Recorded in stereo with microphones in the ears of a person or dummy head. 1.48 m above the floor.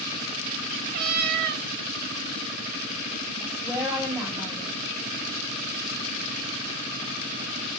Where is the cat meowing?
55° right (ahead or behind), 2 m.